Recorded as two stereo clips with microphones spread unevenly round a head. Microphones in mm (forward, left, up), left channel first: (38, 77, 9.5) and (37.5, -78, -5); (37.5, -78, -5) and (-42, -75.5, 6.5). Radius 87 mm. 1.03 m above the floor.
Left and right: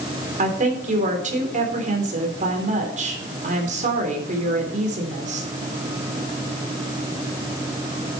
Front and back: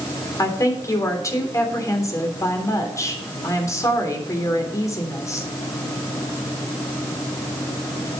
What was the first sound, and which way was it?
A woman speaking, 50° right.